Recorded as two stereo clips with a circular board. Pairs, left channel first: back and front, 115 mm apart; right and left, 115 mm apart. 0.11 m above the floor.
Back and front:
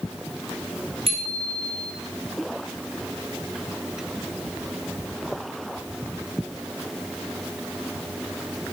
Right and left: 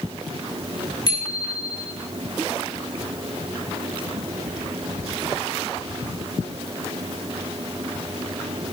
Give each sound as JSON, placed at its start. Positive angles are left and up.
{"t": 1.1, "sound": "a bicycle bell", "azimuth_deg": -40, "distance_m": 6.0}